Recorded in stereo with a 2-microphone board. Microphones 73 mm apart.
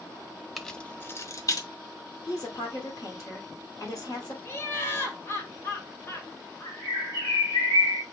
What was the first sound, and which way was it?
Keys jangling, centre (ahead or behind).